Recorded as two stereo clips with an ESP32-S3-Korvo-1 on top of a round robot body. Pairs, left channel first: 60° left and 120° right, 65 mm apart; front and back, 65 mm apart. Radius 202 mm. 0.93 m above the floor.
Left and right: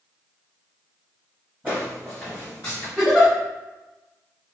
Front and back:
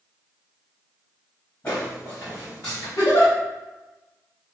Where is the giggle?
35° right, 1.0 m.